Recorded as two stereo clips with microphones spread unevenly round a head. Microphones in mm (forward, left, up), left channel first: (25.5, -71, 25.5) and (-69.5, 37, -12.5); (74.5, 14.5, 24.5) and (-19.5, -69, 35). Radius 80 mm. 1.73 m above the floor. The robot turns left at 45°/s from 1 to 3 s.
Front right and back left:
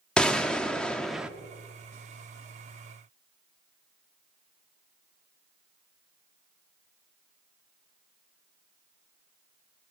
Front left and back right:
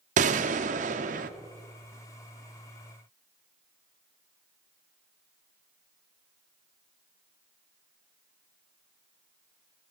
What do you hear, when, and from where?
0.2 s a gunshot: 130° right, 0.8 m; by 1.3 s 140° right, 0.8 m